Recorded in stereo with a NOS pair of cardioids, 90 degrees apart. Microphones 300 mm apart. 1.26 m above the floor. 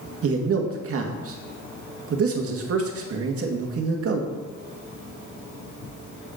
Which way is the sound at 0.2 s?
50° right.